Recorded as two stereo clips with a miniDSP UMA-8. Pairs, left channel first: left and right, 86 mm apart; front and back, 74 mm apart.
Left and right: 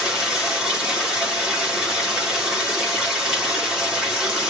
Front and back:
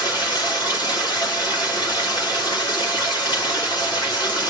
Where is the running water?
5° right, 2.5 m.